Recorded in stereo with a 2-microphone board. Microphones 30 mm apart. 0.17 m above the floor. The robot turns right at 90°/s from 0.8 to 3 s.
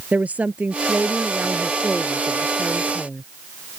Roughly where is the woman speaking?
Behind right.